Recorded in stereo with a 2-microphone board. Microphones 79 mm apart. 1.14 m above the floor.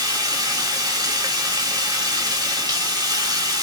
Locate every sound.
0.0 s running water: 50° right (ahead or behind), 1.3 m